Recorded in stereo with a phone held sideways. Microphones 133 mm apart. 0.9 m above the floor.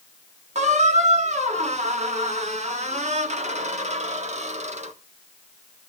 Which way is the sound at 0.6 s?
60° right (ahead or behind).